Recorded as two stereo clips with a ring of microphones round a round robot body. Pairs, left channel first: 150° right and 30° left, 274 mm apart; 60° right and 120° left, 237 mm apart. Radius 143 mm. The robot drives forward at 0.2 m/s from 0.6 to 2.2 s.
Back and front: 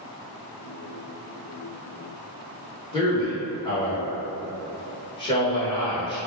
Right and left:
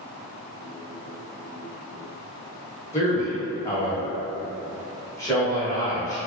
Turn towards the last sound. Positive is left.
turn(degrees=-110)